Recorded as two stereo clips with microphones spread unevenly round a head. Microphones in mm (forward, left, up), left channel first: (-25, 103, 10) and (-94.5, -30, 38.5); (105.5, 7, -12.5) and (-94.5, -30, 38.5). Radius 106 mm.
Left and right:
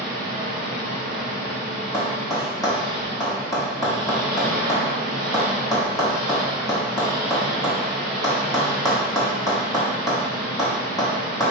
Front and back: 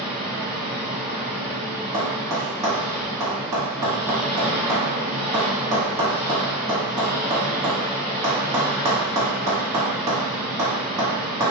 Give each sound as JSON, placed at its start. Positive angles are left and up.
{"t": 0.0, "sound": "an engine running", "azimuth_deg": -80, "distance_m": 1.4}
{"t": 1.9, "sound": "tapping", "azimuth_deg": 135, "distance_m": 1.9}